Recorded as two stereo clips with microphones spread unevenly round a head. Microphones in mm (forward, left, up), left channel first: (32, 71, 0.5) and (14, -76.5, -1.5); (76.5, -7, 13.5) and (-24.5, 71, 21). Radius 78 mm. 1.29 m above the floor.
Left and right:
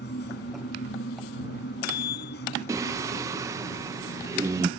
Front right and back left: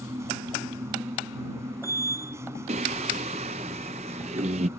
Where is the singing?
170° right.